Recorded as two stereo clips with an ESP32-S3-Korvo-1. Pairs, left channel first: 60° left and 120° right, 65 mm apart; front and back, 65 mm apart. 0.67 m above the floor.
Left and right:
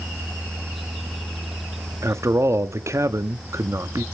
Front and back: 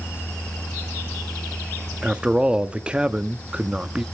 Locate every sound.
2.0 s a man speaking: 110° right, 0.7 m